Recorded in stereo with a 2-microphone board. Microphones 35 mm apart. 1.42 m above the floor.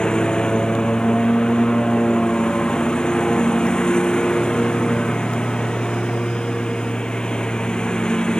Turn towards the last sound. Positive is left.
turn(degrees=20)  # may be behind; listen again after turning